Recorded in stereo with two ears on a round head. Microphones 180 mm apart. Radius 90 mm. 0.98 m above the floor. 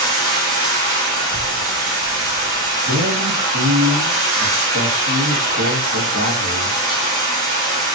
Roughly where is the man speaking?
Right.